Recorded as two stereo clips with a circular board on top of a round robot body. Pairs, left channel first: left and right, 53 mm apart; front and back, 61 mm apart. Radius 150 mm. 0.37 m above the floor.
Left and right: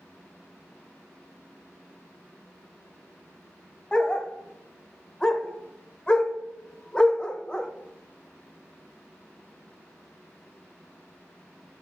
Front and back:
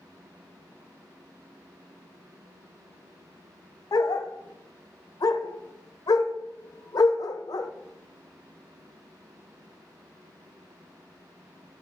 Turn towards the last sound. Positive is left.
turn(degrees=15)